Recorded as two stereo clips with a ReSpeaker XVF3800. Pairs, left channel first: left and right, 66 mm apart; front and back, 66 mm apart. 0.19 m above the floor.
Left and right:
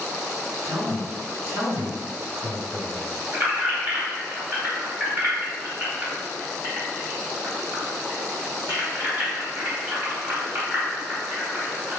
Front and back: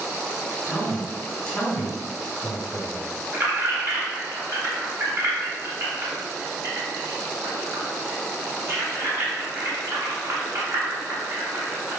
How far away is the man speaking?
About 1.9 m.